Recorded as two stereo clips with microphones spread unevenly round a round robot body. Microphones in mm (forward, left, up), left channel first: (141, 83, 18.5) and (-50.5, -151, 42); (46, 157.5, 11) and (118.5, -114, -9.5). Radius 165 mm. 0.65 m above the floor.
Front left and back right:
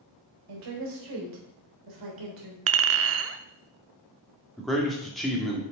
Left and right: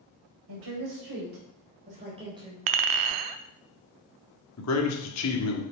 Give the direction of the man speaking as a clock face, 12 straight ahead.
7 o'clock.